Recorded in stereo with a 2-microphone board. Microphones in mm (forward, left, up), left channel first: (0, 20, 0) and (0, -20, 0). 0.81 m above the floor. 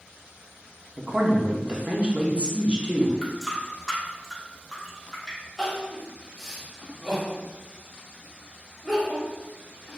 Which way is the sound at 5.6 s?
5° right (ahead or behind).